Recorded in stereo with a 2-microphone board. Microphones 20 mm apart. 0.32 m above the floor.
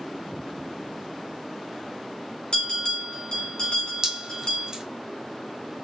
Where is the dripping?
30° right (ahead or behind), 1.3 m.